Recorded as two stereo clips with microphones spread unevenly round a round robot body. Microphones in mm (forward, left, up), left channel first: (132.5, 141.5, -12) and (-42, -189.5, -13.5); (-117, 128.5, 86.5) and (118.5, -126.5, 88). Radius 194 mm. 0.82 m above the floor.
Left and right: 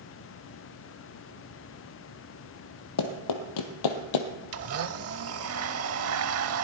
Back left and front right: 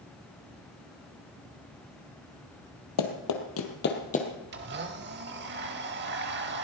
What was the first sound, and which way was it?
Running footsteps, 100° left.